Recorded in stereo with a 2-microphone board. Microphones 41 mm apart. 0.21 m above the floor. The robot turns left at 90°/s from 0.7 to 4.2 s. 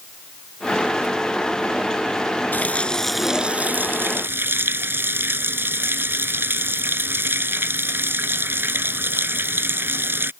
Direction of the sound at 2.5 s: 55° left.